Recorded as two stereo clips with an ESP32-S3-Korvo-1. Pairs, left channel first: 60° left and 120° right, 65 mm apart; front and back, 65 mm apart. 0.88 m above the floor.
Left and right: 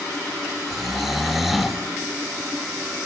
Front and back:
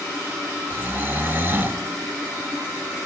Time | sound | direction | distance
0.7 | snoring | 155° left | 0.6 m